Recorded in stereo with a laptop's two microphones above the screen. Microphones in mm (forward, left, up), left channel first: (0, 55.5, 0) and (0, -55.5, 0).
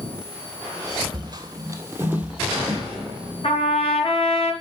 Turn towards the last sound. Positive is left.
turn(degrees=60)  # may be behind; listen again after turning